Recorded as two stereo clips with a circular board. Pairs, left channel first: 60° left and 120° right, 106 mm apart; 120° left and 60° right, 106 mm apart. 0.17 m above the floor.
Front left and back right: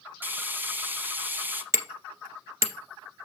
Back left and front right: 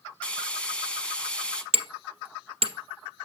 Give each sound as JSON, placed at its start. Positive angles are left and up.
{"t": 0.2, "sound": "frying", "azimuth_deg": -170, "distance_m": 1.1}
{"t": 1.7, "sound": "hammering", "azimuth_deg": -65, "distance_m": 1.3}